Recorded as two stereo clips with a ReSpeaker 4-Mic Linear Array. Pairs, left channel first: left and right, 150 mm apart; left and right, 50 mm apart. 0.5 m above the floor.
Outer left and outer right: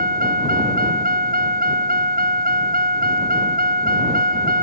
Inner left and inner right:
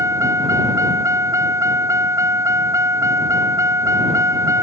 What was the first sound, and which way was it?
A vehicle, 80° right.